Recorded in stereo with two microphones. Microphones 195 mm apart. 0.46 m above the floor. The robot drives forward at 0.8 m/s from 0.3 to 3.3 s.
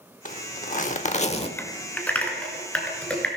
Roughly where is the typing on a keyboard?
Centre.